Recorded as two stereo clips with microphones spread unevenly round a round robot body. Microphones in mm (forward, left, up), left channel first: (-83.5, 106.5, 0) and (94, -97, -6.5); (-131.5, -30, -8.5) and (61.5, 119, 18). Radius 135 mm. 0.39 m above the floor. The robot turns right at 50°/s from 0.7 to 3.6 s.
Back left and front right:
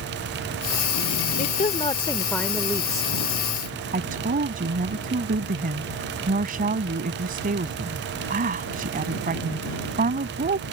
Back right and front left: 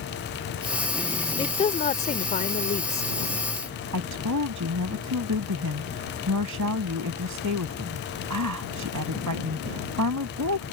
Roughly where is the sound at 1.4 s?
Behind.